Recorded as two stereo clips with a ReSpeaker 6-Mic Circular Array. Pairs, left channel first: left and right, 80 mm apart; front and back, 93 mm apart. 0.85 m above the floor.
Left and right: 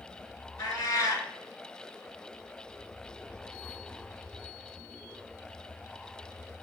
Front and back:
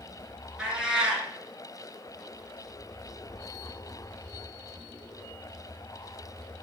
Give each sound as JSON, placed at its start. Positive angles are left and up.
{"t": 0.6, "sound": "a cat meowing", "azimuth_deg": 100, "distance_m": 1.0}